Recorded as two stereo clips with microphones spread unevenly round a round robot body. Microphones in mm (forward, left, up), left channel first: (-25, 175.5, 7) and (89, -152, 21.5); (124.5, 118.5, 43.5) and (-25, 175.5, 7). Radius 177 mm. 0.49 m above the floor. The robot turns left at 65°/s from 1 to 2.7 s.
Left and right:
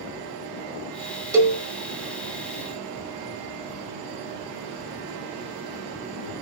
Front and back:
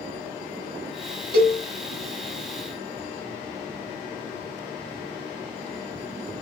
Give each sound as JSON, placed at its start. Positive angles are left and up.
{"t": 1.3, "sound": "a cowbell", "azimuth_deg": -155, "distance_m": 0.8}